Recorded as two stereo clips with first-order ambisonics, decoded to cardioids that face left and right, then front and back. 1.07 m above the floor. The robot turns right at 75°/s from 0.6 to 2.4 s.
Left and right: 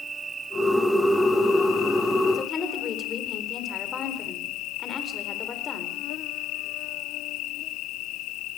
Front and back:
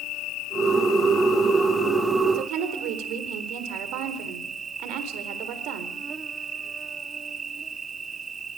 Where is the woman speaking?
155° left, 4 m; by 6.0 s 160° left, 4 m.